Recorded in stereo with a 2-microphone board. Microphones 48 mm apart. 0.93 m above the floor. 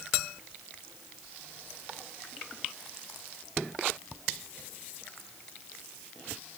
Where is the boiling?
I don't hear boiling.